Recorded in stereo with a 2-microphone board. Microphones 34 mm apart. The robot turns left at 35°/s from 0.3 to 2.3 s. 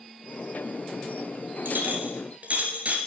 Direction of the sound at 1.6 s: 65° right (ahead or behind).